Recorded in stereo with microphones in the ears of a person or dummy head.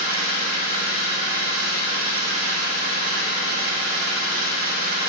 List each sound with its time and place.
0.0 s an engine running: 50° right (ahead or behind), 0.8 m